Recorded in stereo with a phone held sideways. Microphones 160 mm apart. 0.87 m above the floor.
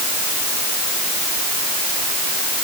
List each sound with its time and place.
Only background noise.